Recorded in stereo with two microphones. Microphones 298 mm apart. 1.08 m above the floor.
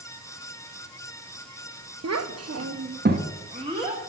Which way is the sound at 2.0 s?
60° right (ahead or behind).